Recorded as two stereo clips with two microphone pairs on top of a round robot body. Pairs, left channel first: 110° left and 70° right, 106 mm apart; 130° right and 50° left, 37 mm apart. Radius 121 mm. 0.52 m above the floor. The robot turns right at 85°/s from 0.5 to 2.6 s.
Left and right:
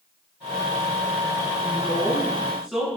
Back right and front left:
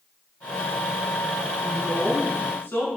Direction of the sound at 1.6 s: 125° left.